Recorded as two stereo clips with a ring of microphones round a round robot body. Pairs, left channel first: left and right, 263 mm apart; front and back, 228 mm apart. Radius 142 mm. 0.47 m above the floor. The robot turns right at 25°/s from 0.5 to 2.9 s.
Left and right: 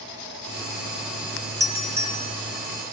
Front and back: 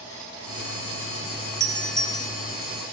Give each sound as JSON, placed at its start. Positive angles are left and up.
{"t": 1.6, "sound": "a doorbell", "azimuth_deg": -35, "distance_m": 1.1}